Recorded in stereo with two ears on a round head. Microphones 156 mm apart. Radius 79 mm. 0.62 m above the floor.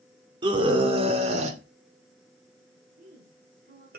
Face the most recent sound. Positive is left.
turn(degrees=-50)  # may be behind; listen again after turning